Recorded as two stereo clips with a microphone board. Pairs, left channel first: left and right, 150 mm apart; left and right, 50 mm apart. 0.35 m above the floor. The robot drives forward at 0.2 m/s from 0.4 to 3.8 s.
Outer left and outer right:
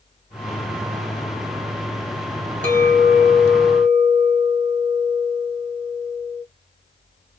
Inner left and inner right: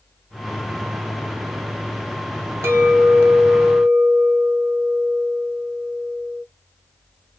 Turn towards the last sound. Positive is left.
turn(degrees=-60)  # may be behind; listen again after turning